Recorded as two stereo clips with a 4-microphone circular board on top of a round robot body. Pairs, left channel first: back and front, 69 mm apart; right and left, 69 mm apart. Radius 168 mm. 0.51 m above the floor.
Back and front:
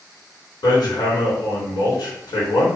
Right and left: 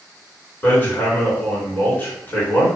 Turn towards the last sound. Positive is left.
turn(degrees=-155)